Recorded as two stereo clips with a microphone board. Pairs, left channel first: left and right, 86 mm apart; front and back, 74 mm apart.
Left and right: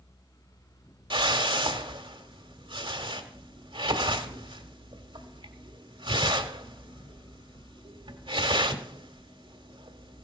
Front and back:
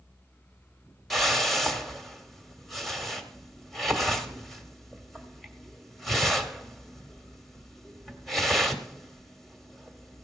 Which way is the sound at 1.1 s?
90° right.